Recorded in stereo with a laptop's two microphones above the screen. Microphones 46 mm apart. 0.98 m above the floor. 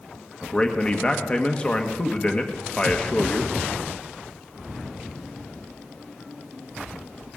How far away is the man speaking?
About 1.3 m.